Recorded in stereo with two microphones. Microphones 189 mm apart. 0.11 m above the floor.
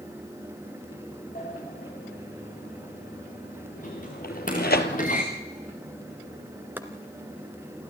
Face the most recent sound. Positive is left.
turn(degrees=-10)  # may be behind; listen again after turning